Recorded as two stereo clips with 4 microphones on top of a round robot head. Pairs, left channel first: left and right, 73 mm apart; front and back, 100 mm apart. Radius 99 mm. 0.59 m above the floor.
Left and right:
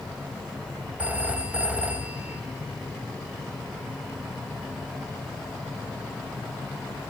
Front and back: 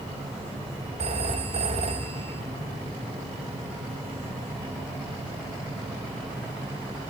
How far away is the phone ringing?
About 3 m.